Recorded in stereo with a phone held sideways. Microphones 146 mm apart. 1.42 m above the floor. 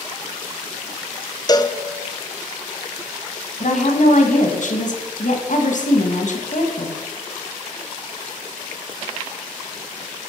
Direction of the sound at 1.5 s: 25° left (ahead or behind).